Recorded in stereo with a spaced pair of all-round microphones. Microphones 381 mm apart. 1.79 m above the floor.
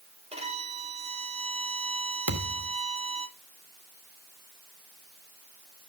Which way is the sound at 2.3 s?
55° right (ahead or behind).